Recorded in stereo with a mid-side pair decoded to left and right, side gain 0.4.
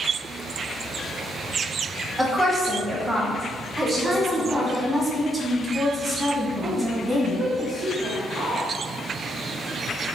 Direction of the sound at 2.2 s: 20° right.